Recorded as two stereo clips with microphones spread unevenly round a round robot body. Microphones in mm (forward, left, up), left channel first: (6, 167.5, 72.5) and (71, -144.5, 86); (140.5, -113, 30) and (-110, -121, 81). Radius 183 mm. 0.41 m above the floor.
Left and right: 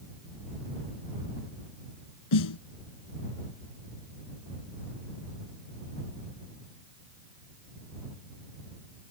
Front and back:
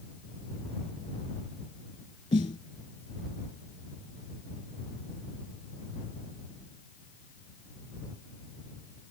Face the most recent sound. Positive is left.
turn(degrees=75)